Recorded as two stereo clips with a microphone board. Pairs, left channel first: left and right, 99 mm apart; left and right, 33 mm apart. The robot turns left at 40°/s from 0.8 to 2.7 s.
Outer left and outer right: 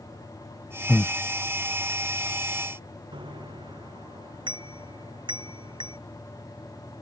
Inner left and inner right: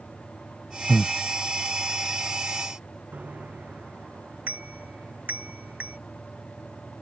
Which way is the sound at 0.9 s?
15° left (ahead or behind).